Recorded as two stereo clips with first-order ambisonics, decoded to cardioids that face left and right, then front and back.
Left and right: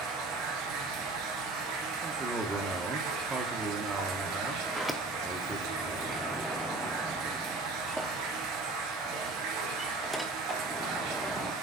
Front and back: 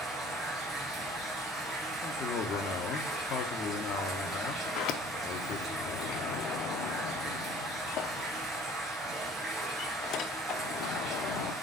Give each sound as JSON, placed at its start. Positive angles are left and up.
{"t": 0.0, "sound": "running water", "azimuth_deg": -105, "distance_m": 2.0}
{"t": 2.0, "sound": "a man speaking", "azimuth_deg": -20, "distance_m": 0.9}
{"t": 4.7, "sound": "a sliding door", "azimuth_deg": -5, "distance_m": 0.6}